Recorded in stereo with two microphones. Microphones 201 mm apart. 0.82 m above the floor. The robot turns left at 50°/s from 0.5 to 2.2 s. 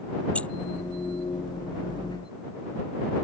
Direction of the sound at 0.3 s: 5° left (ahead or behind).